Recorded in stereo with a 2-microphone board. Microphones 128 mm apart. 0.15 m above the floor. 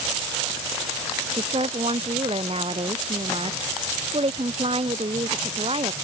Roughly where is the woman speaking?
Right.